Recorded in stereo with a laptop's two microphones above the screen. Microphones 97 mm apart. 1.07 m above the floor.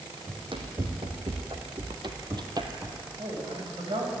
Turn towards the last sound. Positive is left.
turn(degrees=-65)  # may be behind; listen again after turning